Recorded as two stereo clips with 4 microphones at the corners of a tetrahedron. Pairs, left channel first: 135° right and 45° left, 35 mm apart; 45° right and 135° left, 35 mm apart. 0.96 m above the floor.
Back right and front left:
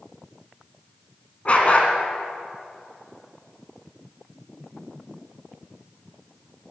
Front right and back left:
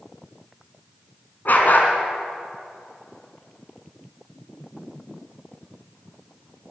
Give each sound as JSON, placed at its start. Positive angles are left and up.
{"t": 1.4, "sound": "a dog barking", "azimuth_deg": -80, "distance_m": 2.5}